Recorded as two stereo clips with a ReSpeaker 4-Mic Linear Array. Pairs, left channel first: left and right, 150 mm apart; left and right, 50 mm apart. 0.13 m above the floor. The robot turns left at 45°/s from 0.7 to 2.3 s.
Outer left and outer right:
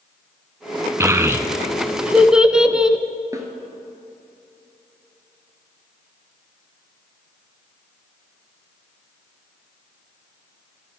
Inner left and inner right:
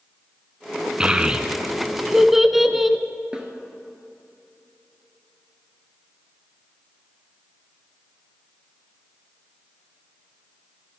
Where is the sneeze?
No sneeze in this recording.